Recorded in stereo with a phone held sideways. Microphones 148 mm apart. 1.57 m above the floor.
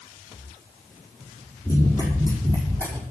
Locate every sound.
1.6 s running footsteps: 25° left (ahead or behind), 5 m; by 3.0 s 15° left (ahead or behind), 4.5 m